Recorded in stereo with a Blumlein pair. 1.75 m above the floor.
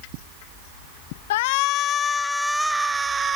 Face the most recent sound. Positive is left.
turn(degrees=-20)